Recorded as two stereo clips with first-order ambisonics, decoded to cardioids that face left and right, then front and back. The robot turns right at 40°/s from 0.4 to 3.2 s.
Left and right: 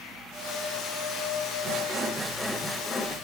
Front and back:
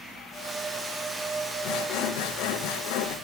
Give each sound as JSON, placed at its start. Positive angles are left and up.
{"t": 1.6, "sound": "sawing", "azimuth_deg": -35, "distance_m": 2.0}